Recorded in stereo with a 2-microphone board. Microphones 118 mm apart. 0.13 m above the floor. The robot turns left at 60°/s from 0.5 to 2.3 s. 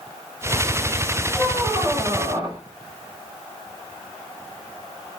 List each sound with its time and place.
1.3 s a squeak: 20° left, 6 m; by 2.6 s 40° right, 6 m